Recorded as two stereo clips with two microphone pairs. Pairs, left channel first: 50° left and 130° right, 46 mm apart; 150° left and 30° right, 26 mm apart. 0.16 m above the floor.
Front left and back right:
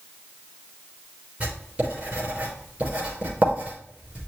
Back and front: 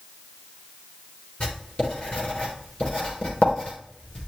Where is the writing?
175° left, 4 m.